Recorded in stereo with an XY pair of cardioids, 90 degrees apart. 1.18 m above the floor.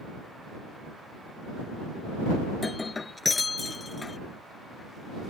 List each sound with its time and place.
2.5 s breaking glass: 30° left